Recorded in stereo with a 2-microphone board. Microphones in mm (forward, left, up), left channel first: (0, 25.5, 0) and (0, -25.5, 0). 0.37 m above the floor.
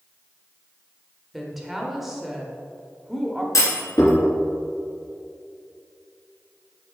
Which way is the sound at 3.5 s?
75° left (ahead or behind).